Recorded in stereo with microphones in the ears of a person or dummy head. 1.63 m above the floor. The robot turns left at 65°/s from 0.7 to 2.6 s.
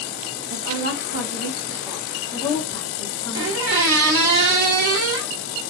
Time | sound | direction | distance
0.5 | a woman speaking | 80° right | 0.7 m
3.3 | a squeak | 60° right (ahead or behind) | 1.0 m